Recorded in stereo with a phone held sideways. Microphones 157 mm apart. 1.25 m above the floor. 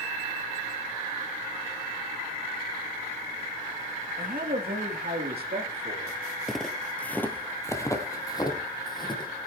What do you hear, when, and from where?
4.2 s a man speaking: 65° right (ahead or behind), 1.8 m; by 6.2 s 85° right, 3 m
6.5 s footsteps: centre (ahead or behind), 1.5 m; by 9.3 s 30° left (ahead or behind), 3 m